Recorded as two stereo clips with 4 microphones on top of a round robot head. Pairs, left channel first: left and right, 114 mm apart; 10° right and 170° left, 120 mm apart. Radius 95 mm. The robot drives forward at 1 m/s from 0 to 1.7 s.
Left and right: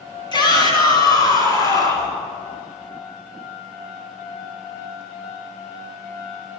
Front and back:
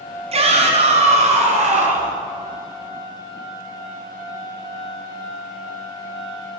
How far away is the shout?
About 4.5 m.